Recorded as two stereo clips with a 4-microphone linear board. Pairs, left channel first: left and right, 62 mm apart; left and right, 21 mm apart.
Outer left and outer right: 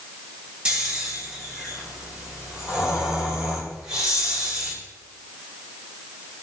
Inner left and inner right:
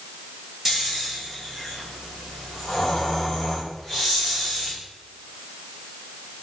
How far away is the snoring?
About 4.5 m.